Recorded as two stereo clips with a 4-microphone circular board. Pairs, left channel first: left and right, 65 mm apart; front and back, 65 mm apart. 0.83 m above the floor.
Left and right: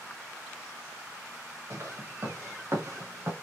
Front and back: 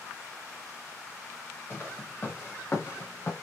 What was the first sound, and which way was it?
Footsteps, 55° right.